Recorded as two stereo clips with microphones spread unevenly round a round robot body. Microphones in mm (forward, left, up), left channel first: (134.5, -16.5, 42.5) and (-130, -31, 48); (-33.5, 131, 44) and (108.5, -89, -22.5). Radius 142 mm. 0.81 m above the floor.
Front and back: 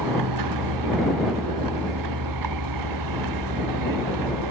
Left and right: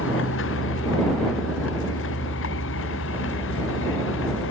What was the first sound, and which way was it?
A vehicle, 170° left.